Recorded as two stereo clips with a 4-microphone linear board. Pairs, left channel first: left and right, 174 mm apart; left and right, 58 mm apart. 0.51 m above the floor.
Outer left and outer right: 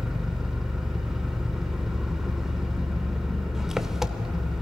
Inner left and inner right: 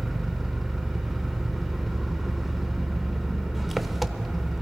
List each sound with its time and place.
0.0 s an engine running: 5° right (ahead or behind), 0.7 m